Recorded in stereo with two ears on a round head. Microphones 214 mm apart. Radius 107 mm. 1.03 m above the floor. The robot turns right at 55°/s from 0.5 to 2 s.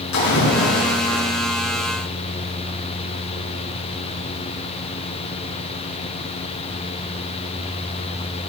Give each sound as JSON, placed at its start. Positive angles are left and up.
{"t": 0.1, "sound": "a splash", "azimuth_deg": 80, "distance_m": 9.0}